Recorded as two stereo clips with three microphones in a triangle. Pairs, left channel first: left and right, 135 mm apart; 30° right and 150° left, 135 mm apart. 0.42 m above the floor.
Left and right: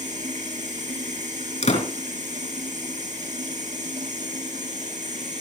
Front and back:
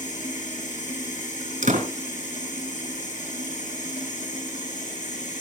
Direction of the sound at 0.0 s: 60° right.